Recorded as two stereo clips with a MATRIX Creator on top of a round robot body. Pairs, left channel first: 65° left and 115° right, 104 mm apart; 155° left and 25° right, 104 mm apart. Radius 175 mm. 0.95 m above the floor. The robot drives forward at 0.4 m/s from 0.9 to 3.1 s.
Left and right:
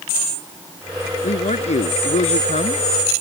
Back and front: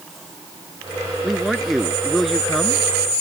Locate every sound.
1.2 s a man speaking: 65° left; by 2.8 s 70° left